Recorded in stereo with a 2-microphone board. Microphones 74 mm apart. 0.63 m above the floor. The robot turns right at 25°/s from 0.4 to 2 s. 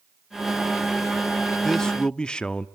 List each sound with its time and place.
1.6 s a man speaking: 5° left (ahead or behind), 0.8 m; by 2.7 s 10° left (ahead or behind), 0.8 m